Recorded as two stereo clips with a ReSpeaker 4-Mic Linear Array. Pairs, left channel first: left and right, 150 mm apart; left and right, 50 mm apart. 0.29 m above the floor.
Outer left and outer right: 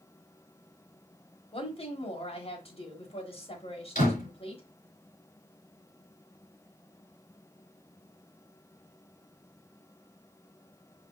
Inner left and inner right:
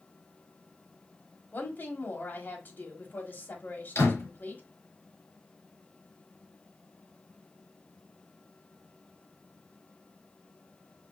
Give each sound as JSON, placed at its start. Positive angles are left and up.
{"t": 1.5, "sound": "a woman speaking", "side_deg": 40, "distance_m": 1.3}
{"t": 4.0, "sound": "a door slam", "side_deg": 55, "distance_m": 3.5}